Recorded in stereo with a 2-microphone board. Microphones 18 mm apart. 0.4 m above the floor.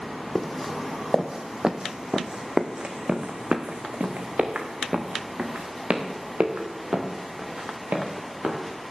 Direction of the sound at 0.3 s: Centre (ahead or behind).